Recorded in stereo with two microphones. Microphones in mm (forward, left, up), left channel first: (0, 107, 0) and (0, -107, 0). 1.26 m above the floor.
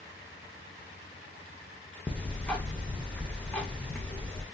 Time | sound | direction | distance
2.1 | ticking | 5° left (ahead or behind) | 0.6 m